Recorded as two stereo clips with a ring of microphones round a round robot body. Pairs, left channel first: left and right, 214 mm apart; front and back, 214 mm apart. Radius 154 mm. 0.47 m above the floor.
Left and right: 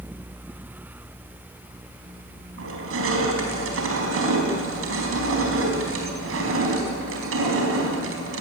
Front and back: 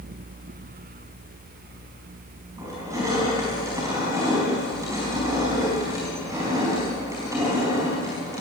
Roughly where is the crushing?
Right.